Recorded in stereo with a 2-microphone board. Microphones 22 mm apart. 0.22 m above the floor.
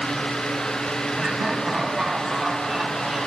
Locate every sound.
1.2 s laughter: 25° right (ahead or behind), 1.3 m; by 3.3 s 30° right (ahead or behind), 2.5 m